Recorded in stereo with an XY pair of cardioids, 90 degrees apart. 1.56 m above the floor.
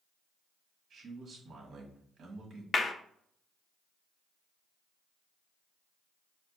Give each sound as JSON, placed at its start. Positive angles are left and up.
{"t": 0.9, "sound": "a man speaking", "azimuth_deg": -60, "distance_m": 1.6}
{"t": 2.7, "sound": "a clap", "azimuth_deg": 45, "distance_m": 0.6}